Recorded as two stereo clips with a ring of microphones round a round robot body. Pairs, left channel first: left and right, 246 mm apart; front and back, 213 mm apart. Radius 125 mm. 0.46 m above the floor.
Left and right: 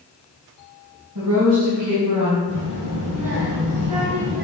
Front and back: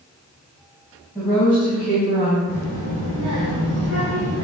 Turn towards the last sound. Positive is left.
turn(degrees=-85)